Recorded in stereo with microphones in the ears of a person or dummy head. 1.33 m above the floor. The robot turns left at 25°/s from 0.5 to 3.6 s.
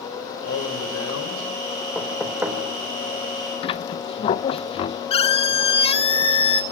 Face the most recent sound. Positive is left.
turn(degrees=35)  # may be behind; listen again after turning